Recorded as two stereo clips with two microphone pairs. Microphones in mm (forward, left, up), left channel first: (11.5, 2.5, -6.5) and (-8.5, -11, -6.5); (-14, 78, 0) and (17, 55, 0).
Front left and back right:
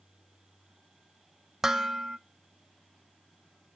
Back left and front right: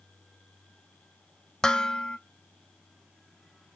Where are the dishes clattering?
175° left, 0.5 m.